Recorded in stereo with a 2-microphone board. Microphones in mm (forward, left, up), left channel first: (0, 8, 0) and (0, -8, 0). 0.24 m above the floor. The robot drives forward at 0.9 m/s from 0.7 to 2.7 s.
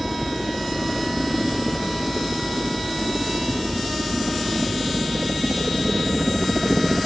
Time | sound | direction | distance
0.0 | a helicopter | 15° right (ahead or behind) | ?